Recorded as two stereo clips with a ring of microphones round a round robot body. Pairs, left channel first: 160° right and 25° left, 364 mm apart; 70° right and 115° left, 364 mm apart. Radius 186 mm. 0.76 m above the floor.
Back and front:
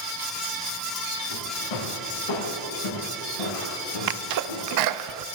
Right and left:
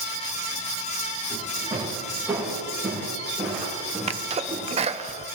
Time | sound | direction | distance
1.3 | footsteps | 165° right | 6 m
4.1 | a sneeze | 40° left | 0.7 m